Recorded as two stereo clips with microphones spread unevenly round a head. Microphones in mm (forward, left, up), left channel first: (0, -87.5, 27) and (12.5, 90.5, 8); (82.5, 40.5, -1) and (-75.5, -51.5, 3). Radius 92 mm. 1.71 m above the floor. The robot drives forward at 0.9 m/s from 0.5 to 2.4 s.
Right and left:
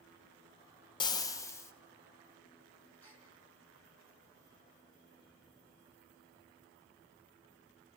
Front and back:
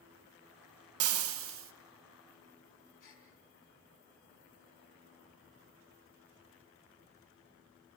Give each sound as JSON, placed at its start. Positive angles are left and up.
{"t": 1.0, "sound": "frying", "azimuth_deg": -160, "distance_m": 0.6}
{"t": 3.0, "sound": "a gasp", "azimuth_deg": -15, "distance_m": 6.0}